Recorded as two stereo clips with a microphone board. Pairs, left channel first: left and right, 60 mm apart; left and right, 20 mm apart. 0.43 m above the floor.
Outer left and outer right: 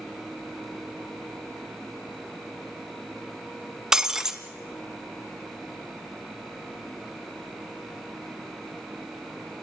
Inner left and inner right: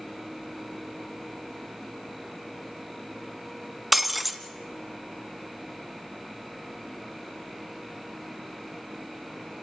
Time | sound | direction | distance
3.9 | breaking glass | 10° right (ahead or behind) | 1.4 m